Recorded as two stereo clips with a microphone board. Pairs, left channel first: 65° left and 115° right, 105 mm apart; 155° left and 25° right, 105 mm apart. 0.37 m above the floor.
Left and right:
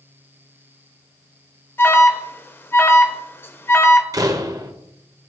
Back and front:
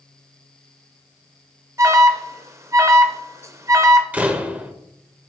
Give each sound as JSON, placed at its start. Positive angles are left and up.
{"t": 1.8, "sound": "an alarm", "azimuth_deg": 15, "distance_m": 0.6}
{"t": 4.1, "sound": "a door slam", "azimuth_deg": -90, "distance_m": 0.7}